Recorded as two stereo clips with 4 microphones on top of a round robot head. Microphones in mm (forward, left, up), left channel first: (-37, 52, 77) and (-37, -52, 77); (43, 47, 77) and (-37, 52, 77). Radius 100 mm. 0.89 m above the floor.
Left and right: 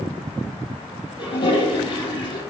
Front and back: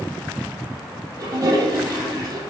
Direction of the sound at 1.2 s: 135° left.